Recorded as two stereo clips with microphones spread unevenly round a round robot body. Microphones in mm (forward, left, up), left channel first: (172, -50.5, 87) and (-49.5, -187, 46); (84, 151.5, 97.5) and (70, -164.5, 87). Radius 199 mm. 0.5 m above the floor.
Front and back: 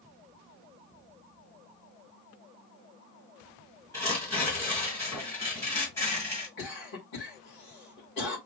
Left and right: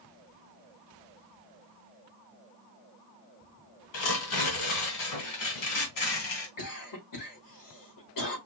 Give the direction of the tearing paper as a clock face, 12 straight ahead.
8 o'clock.